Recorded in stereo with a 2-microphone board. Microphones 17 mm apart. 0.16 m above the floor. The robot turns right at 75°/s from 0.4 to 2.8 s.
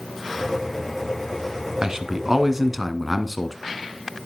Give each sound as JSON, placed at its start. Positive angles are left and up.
{"t": 1.8, "sound": "a man speaking", "azimuth_deg": -80, "distance_m": 1.7}